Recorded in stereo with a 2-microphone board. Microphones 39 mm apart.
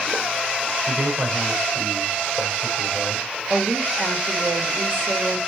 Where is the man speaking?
60° right (ahead or behind), 4.5 m.